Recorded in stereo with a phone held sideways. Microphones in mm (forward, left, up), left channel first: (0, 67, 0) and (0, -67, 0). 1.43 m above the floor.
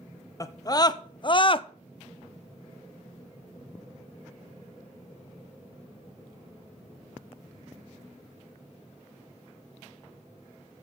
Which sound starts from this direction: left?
A scream, at 0.4 s.